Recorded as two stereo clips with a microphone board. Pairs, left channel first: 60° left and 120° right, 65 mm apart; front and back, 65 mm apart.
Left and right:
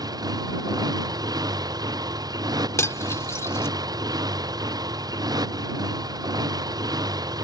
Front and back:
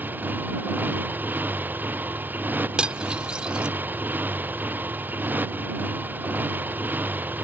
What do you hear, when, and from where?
0.0 s a motorcycle: 120° right
2.8 s cutlery clinking: 105° left